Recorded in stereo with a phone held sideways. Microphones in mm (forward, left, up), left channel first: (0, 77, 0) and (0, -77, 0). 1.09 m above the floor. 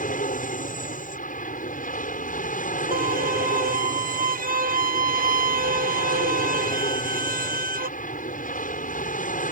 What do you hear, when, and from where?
0.0 s an aircraft: 65° left (ahead or behind)
2.9 s a violin: 75° right (ahead or behind)